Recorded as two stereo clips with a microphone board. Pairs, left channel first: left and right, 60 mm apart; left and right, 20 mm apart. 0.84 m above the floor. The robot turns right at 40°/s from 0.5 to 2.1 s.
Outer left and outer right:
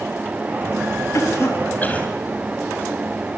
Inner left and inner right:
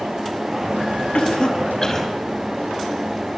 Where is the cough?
60° left (ahead or behind), 5 m; by 2.1 s 20° left (ahead or behind), 5 m.